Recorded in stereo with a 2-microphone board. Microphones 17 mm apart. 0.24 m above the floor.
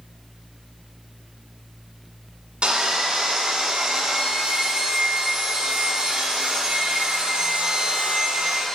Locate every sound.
2.6 s sawing: 65° right (ahead or behind), 1.2 m